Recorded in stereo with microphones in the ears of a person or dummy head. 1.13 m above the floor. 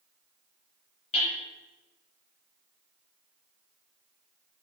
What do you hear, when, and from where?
1.1 s hammering: 35° left (ahead or behind), 6 m